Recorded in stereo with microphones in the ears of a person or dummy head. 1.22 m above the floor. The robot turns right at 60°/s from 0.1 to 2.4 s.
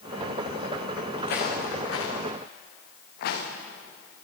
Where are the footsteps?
55° left (ahead or behind), 5 m.